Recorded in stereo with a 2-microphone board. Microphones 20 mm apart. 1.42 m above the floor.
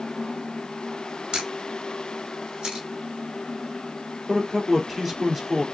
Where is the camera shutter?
40° right (ahead or behind), 4.5 m.